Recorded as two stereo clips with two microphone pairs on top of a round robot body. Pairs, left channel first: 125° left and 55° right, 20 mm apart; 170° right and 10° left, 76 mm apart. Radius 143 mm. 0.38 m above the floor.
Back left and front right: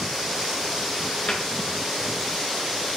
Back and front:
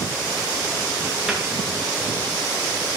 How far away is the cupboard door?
About 6.5 m.